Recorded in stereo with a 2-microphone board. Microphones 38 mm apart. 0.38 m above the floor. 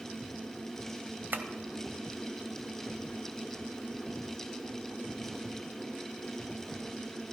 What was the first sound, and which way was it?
Tapping, 60° right (ahead or behind).